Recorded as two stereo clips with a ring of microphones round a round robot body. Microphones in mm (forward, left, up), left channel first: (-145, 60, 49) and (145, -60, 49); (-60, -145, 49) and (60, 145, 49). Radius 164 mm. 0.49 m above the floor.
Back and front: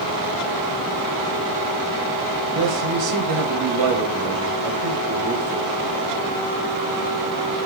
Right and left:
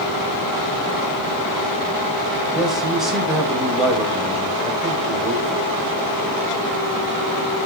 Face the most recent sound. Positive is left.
turn(degrees=-20)